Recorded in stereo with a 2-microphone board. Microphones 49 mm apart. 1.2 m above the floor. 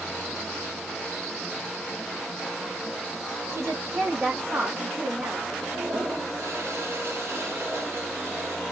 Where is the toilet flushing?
55° right (ahead or behind), 1.2 m.